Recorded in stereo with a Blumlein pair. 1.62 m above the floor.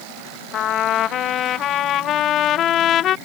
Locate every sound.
0.5 s a trumpet: 30° left